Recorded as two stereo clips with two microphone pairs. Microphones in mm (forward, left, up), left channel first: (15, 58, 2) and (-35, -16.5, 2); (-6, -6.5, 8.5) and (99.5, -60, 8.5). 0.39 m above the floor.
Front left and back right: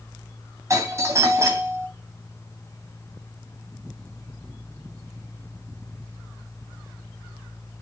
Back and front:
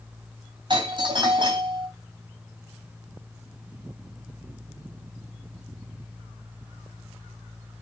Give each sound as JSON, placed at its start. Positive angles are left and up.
{"t": 0.7, "sound": "a doorbell", "azimuth_deg": -70, "distance_m": 3.0}